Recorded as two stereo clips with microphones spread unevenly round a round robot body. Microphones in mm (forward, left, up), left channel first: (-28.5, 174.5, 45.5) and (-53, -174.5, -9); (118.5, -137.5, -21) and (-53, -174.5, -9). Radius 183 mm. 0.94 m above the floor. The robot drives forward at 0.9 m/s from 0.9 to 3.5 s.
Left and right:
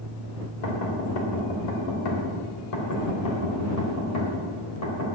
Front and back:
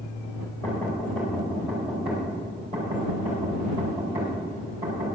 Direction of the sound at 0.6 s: 95° left.